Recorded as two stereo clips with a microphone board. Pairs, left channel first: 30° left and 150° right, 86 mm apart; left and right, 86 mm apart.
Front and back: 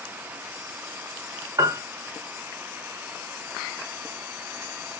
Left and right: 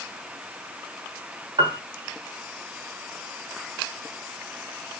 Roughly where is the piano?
Right.